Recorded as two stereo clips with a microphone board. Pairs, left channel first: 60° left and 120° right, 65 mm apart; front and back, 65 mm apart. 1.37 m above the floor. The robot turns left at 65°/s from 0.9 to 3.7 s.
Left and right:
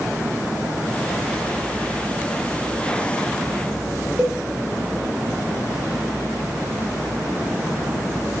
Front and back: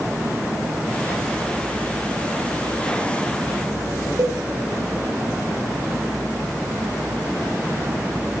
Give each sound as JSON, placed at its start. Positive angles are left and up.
{"t": 4.2, "sound": "a cowbell", "azimuth_deg": 170, "distance_m": 0.6}